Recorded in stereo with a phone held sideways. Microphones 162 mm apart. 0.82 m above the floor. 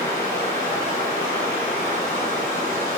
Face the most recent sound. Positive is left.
turn(degrees=55)  # may be behind; listen again after turning